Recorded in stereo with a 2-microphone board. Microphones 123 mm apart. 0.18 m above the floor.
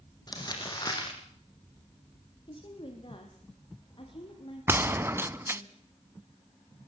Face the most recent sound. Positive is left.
turn(degrees=-20)  # may be behind; listen again after turning